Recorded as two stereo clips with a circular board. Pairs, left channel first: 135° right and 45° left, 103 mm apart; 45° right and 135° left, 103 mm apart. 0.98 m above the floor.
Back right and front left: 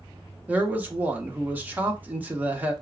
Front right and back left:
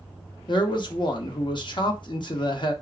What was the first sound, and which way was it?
A man speaking, 25° right.